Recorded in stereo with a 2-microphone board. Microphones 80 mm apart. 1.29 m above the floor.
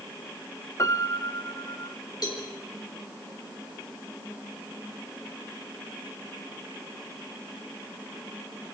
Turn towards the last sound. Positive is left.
turn(degrees=55)  # may be behind; listen again after turning